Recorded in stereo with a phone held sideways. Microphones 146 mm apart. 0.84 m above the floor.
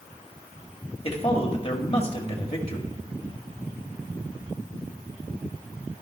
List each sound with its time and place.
1.0 s a man speaking: 40° left (ahead or behind), 1.8 m